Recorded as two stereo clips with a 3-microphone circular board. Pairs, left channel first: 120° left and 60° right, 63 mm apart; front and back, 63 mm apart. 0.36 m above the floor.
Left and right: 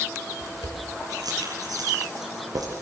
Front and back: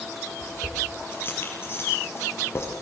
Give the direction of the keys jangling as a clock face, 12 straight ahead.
2 o'clock.